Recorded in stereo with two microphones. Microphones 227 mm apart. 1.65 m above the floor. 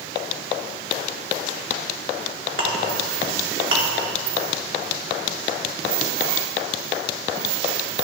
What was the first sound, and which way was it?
A clink, 60° right (ahead or behind).